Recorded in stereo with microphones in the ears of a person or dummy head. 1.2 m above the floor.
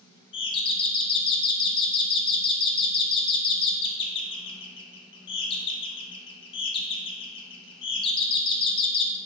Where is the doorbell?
25° left (ahead or behind), 0.6 m.